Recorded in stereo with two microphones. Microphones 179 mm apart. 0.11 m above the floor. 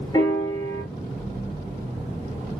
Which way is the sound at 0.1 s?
25° left (ahead or behind).